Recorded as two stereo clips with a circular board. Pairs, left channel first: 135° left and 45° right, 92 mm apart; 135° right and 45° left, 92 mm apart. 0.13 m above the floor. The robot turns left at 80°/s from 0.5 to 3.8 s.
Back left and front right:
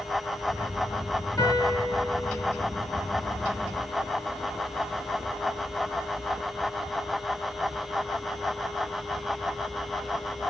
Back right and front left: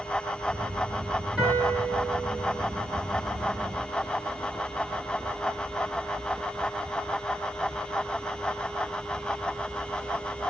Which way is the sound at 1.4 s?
115° left.